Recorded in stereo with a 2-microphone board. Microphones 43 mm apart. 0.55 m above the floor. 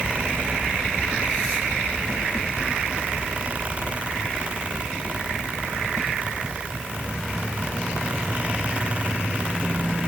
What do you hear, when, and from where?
Only background noise.